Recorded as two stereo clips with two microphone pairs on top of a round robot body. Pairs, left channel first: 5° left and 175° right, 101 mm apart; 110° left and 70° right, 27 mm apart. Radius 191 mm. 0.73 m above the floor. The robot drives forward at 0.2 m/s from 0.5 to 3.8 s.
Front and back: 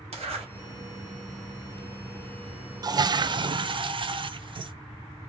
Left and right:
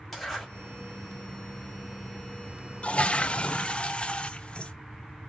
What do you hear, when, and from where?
0.1 s a zipper: 165° right, 2.5 m
2.8 s a toilet flushing: 145° left, 0.5 m; by 4.7 s 155° left, 0.7 m